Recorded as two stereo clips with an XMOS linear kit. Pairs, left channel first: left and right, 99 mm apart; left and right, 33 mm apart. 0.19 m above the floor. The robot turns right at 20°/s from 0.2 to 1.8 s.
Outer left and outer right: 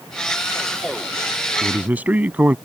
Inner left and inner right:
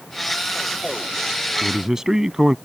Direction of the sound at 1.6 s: 20° right (ahead or behind).